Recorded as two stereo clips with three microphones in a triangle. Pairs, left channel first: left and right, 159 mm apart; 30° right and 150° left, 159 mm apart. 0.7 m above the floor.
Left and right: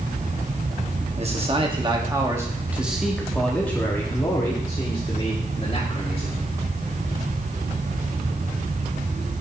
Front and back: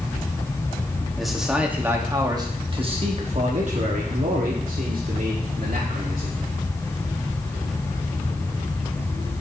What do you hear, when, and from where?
1.2 s a man speaking: 120° right, 1.3 m; by 6.4 s 135° left, 2.5 m